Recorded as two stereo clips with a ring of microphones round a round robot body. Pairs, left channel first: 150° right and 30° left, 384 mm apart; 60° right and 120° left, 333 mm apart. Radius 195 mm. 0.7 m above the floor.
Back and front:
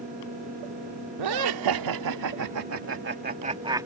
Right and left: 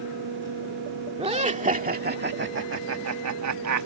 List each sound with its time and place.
1.2 s laughter: 50° left; by 3.9 s 110° left